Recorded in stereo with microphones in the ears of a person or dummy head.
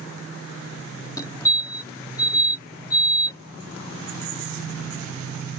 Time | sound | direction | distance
1.2 | a fire alarm | 20° left (ahead or behind) | ?